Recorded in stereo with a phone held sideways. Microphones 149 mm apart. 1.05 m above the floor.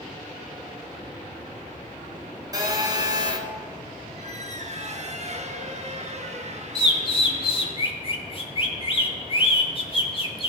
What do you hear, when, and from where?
2.5 s a phone buzzing: 25° right (ahead or behind), 1.4 m
4.2 s a squeak: 50° right (ahead or behind), 0.9 m
6.8 s a bird: 35° left (ahead or behind), 1.0 m